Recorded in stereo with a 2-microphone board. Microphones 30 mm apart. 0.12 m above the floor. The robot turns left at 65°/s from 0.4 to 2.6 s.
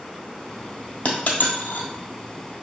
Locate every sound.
1.1 s a dropped coin: 45° left (ahead or behind), 1.2 m; by 1.9 s 70° left (ahead or behind), 1.2 m